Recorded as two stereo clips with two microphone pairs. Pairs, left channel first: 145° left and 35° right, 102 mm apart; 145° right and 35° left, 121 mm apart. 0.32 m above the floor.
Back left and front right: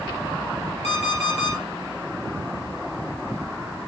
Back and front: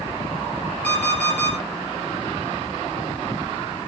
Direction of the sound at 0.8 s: 135° left.